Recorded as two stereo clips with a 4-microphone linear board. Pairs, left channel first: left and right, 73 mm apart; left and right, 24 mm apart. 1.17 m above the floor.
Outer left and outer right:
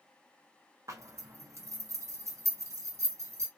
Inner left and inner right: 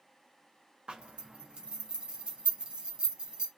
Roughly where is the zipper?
Right.